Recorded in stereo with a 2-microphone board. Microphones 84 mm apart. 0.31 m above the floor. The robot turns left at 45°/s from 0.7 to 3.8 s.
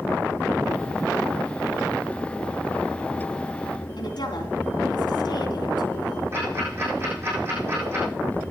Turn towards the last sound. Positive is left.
turn(degrees=-30)  # may be behind; listen again after turning